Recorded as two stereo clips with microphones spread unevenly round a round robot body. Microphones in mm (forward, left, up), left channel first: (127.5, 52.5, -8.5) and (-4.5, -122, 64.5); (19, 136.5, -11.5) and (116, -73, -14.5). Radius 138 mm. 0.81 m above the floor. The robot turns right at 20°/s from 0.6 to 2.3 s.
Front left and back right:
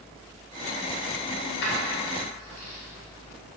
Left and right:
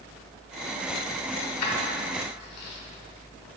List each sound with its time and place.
1.4 s keys jangling: 90° left, 1.6 m; by 2.8 s 110° left, 1.6 m